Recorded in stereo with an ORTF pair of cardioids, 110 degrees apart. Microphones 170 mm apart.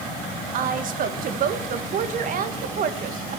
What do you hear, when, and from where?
0.5 s a woman speaking: 55° right, 1.8 m